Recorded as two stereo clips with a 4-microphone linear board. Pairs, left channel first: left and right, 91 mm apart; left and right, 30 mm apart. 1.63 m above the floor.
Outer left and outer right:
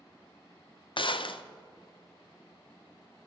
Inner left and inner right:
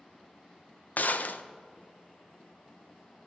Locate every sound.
1.0 s a gunshot: 65° left (ahead or behind), 0.5 m